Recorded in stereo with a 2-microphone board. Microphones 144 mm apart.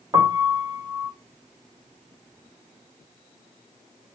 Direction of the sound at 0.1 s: 30° right (ahead or behind).